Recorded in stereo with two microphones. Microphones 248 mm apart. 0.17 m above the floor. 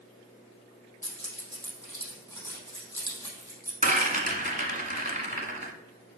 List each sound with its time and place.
1.0 s keys jangling: 10° left (ahead or behind), 3.5 m
3.8 s a rattle: 30° right (ahead or behind), 1.4 m